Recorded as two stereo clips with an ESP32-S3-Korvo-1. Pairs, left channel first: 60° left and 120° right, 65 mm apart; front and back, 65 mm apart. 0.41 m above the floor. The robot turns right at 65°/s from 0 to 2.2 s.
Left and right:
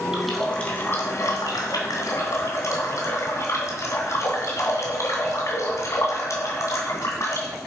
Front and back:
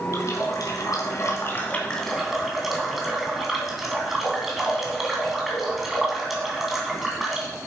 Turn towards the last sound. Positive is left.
turn(degrees=95)